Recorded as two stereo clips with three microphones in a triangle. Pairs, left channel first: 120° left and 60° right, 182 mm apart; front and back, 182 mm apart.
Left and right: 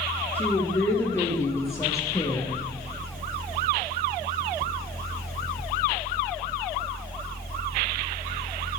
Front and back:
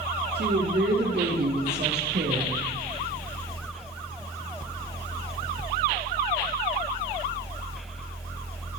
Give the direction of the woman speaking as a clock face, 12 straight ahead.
5 o'clock.